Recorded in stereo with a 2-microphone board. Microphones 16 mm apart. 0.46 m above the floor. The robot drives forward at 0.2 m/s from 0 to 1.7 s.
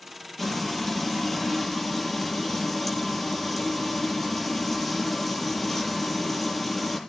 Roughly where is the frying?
Centre.